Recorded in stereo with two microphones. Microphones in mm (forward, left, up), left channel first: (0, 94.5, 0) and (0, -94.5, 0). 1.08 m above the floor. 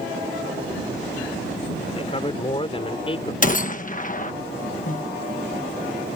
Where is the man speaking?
30° left (ahead or behind).